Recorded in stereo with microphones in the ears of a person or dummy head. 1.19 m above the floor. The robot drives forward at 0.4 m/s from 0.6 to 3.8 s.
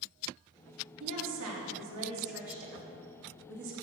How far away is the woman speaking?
About 2.5 m.